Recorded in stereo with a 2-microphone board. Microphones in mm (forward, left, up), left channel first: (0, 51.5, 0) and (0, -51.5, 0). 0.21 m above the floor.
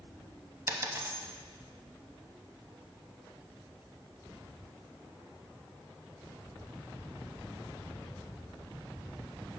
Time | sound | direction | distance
0.7 | a dropped coin | 30° right (ahead or behind) | 0.5 m